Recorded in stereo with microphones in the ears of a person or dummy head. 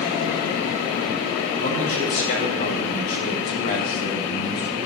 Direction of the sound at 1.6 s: 75° left (ahead or behind).